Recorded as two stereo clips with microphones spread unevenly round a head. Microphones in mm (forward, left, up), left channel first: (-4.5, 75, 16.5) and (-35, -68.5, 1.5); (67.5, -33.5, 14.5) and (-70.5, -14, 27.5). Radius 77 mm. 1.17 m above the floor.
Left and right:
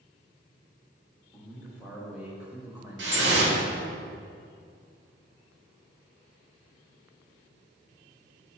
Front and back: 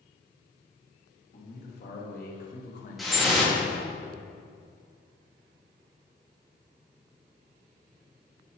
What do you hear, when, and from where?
1.3 s a man speaking: 15° right, 2 m; by 4.0 s 55° right, 0.8 m
3.0 s dripping: 100° right, 1.6 m